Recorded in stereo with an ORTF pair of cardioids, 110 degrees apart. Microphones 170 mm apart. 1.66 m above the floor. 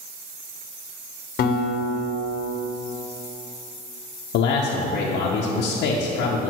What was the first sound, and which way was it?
A guitar, 55° left.